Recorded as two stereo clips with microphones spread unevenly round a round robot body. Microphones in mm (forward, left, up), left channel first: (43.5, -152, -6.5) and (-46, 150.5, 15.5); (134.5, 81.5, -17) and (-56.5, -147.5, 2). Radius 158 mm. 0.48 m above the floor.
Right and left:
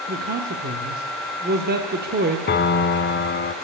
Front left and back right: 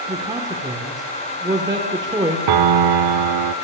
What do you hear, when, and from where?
0.1 s a man speaking: 155° left, 1.4 m
2.5 s a piano: 135° right, 0.7 m